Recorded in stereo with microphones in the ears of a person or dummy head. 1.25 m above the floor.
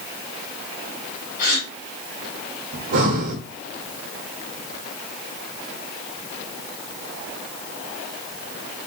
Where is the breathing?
50° right (ahead or behind), 1.5 m.